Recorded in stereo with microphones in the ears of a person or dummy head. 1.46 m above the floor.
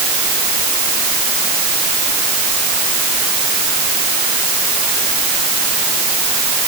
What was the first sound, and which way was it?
Only background noise.